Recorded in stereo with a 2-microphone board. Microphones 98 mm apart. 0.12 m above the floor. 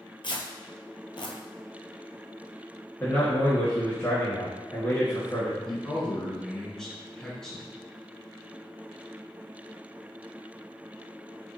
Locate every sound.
0.2 s tearing paper: 60° left (ahead or behind), 0.7 m
3.0 s a man speaking: 25° left (ahead or behind), 1.5 m
5.7 s a man speaking: 5° left (ahead or behind), 1.2 m